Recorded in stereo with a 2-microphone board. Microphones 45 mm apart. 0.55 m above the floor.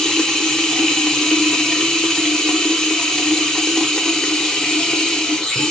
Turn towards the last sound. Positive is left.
turn(degrees=10)  # may be behind; listen again after turning